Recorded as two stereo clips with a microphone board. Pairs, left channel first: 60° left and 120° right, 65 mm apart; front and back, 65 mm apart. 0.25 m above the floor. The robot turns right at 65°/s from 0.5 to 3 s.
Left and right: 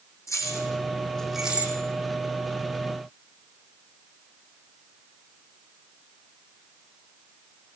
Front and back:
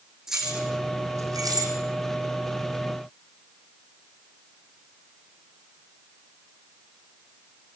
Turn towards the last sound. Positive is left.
turn(degrees=-100)